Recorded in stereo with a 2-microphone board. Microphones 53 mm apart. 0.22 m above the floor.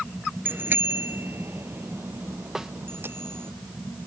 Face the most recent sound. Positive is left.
turn(degrees=-10)  # may be behind; listen again after turning